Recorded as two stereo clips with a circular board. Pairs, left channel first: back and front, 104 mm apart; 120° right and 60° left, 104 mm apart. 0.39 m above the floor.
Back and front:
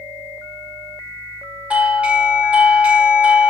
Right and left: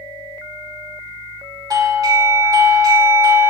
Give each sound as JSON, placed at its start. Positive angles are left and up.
{"t": 1.7, "sound": "a doorbell", "azimuth_deg": 70, "distance_m": 1.4}